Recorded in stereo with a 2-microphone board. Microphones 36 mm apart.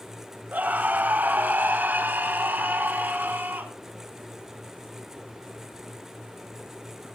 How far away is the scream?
About 2.5 m.